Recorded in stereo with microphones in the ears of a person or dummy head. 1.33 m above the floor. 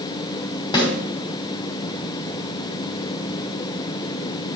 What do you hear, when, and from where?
0.7 s a snare drum: 25° left (ahead or behind), 2.5 m